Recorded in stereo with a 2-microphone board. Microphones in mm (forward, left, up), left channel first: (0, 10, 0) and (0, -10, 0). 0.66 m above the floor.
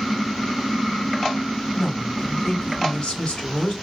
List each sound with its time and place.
1.7 s a woman speaking: 60° left (ahead or behind), 2 m